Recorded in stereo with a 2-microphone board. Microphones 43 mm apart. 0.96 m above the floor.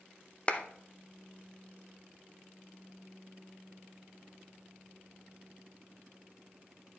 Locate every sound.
0.5 s a clap: 30° left (ahead or behind), 0.7 m